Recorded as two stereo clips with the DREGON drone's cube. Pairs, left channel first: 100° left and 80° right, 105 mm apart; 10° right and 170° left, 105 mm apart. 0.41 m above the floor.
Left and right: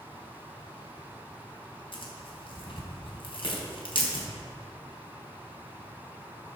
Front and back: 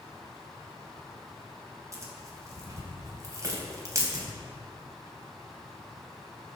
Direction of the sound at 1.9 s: 115° left.